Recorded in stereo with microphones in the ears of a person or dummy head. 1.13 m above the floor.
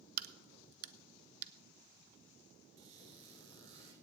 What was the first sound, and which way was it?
A crack, 55° right (ahead or behind).